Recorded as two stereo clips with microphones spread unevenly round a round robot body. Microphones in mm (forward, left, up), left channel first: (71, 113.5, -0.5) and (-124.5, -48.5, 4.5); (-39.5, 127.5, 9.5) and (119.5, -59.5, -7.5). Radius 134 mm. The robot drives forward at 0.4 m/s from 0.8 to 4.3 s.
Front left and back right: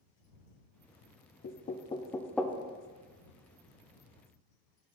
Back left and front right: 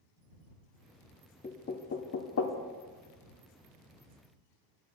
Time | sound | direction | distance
1.4 | knocking | 70° left | 0.5 m